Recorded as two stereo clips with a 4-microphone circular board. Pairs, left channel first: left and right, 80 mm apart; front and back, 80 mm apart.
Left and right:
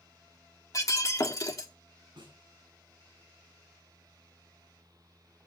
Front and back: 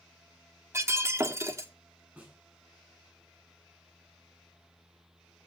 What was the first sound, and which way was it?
Breaking glass, 130° left.